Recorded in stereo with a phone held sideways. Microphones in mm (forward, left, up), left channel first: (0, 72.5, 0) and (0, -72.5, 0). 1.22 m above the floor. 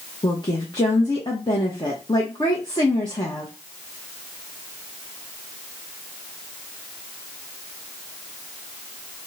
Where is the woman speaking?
35° left (ahead or behind), 0.9 m.